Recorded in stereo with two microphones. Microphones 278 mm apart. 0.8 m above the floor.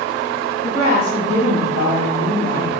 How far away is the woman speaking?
About 1.1 m.